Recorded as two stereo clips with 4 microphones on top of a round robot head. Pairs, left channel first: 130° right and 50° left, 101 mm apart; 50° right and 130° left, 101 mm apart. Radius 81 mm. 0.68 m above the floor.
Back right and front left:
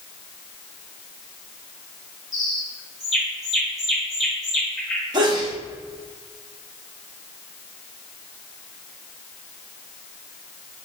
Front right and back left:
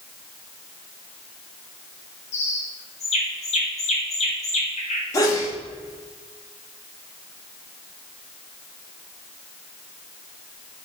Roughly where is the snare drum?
I don't hear a snare drum.